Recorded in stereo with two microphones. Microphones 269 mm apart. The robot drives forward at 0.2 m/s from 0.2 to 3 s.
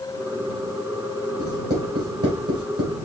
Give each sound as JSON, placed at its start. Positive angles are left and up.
{"t": 1.4, "sound": "writing", "side_deg": -55, "distance_m": 2.5}